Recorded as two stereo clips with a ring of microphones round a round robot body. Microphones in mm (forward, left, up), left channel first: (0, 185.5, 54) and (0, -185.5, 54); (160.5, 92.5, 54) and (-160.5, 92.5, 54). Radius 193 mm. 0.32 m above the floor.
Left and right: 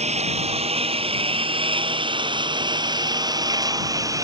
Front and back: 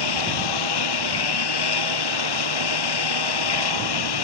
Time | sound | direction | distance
0.0 | a lawn mower | 15° right | ?